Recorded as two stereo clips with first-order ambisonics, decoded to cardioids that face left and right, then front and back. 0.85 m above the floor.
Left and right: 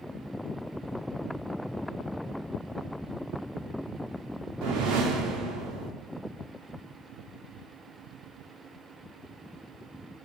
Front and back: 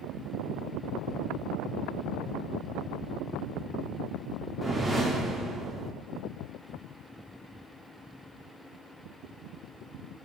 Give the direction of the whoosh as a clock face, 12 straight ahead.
3 o'clock.